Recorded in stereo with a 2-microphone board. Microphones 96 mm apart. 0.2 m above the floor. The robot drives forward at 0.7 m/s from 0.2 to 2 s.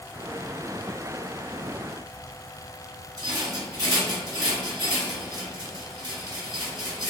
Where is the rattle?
40° right (ahead or behind), 1.5 m.